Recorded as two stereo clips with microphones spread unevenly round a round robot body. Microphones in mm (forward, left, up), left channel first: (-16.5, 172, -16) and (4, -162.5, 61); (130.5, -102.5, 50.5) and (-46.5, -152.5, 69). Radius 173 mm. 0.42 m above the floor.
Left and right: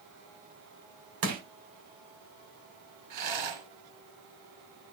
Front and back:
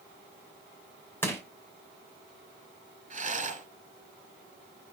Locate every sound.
1.2 s crushing: 55° right, 2.5 m
3.1 s a rattle: 115° right, 3 m